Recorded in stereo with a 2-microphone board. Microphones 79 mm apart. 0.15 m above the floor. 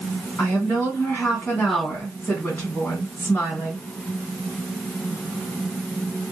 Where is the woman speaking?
20° left (ahead or behind), 1.6 m.